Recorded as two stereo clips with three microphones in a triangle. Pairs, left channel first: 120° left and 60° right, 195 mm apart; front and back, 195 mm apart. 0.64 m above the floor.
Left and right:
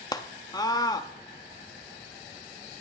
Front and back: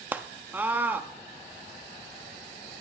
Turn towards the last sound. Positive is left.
turn(degrees=120)